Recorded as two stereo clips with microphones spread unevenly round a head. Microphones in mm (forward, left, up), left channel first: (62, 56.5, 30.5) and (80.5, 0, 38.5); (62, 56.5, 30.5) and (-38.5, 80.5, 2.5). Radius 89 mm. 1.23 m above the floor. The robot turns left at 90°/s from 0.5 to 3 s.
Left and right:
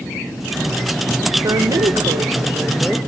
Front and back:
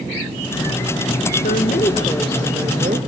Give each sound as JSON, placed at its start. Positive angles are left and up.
{"t": 1.4, "sound": "a woman speaking", "azimuth_deg": -30, "distance_m": 1.1}